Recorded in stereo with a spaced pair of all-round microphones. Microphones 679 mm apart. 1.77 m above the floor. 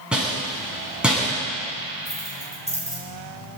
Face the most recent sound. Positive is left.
turn(degrees=-10)  # may be behind; listen again after turning